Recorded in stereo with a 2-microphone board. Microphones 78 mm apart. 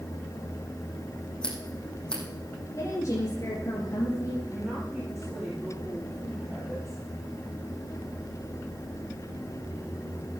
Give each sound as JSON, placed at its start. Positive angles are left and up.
{"t": 1.4, "sound": "scissors", "side_deg": 10, "distance_m": 5.0}
{"t": 2.8, "sound": "a woman speaking", "side_deg": 45, "distance_m": 4.0}
{"t": 4.5, "sound": "a woman speaking", "side_deg": -20, "distance_m": 7.0}